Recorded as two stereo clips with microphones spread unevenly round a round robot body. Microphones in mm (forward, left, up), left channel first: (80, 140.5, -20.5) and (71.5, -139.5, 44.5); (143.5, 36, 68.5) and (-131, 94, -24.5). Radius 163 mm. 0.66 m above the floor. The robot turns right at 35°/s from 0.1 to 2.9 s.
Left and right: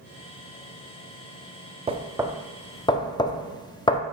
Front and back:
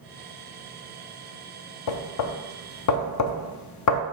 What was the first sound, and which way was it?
Knocking, 15° right.